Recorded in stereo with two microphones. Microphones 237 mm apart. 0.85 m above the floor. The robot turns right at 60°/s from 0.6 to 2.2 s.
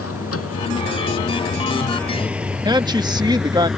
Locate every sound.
0.0 s a vehicle: 90° left; by 3.8 s centre (ahead or behind)
2.6 s a woman speaking: 20° right (ahead or behind)